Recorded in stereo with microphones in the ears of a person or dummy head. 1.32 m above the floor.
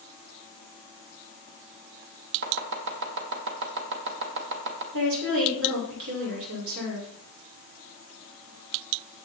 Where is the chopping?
65° right (ahead or behind), 2 m.